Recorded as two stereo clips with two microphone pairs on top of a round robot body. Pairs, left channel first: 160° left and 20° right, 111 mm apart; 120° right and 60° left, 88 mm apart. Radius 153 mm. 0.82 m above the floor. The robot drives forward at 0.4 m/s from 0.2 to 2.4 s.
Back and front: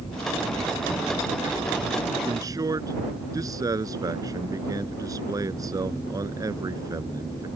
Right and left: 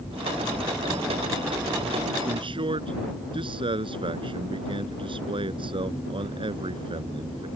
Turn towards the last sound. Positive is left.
turn(degrees=40)